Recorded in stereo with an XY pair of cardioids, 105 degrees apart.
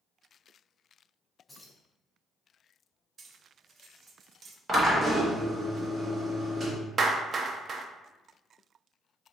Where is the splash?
I don't hear a splash.